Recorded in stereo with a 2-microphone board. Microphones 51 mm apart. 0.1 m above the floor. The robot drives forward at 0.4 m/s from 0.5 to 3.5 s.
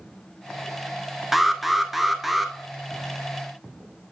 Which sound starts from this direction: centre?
An alarm, at 1.3 s.